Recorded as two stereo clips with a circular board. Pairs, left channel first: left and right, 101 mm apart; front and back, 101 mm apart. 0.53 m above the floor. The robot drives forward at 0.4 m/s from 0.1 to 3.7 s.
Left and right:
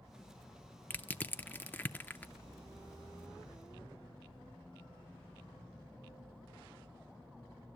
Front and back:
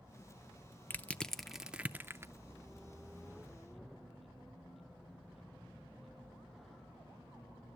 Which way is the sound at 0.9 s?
45° left.